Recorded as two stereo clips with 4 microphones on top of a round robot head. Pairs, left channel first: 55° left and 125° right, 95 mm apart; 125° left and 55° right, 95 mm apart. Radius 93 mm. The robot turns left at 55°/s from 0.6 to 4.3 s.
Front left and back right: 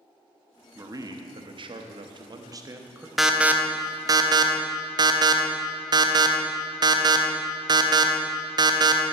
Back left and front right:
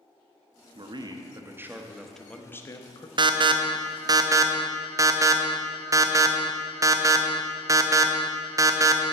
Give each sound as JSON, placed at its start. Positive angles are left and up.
{"t": 0.8, "sound": "a man speaking", "azimuth_deg": -70, "distance_m": 0.8}
{"t": 3.2, "sound": "an alarm", "azimuth_deg": -40, "distance_m": 0.7}